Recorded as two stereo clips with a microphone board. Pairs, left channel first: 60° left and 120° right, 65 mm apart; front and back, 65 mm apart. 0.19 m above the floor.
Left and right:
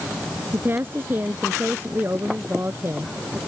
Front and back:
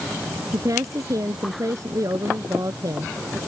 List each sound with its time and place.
0.5 s a woman speaking: 170° right